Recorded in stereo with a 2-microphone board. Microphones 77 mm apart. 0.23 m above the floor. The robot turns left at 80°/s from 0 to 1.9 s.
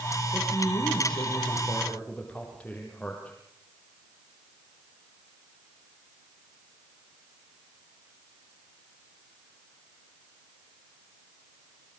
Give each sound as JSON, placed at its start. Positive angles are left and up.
{"t": 0.3, "sound": "a man speaking", "azimuth_deg": 140, "distance_m": 9.0}